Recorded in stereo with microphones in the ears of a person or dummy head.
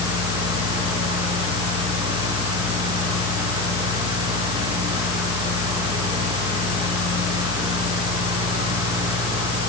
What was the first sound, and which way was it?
A fan, 25° right (ahead or behind).